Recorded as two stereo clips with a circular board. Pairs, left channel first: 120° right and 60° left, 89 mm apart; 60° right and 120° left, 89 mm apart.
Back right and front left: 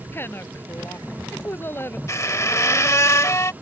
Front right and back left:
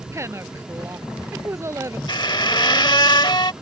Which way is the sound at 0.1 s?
Straight behind.